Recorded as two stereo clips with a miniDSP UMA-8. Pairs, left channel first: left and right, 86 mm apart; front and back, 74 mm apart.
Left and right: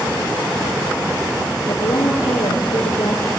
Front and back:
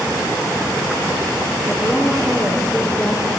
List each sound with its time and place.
1.7 s a woman speaking: 70° left, 5 m